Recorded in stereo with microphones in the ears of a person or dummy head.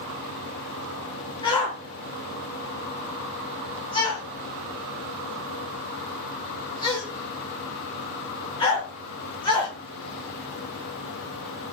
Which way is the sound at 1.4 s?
25° left (ahead or behind).